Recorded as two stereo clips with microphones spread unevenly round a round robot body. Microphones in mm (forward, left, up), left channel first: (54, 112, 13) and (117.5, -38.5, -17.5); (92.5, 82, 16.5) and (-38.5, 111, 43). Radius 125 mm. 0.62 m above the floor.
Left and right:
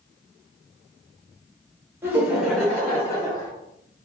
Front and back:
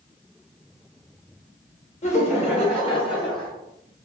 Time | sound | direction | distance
2.0 | laughter | 5° left | 2.0 m